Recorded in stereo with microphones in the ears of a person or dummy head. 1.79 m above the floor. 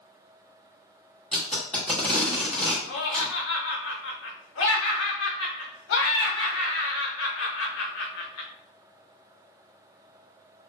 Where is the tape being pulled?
5° left (ahead or behind), 1.1 m.